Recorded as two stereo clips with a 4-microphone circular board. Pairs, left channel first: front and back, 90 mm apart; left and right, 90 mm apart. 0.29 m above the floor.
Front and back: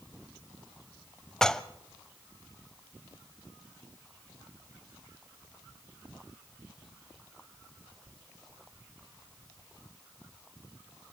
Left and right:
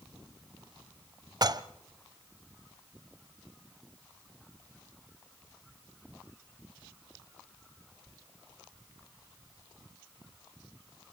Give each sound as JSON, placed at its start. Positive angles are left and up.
{"t": 1.4, "sound": "dishes clattering", "azimuth_deg": -80, "distance_m": 0.8}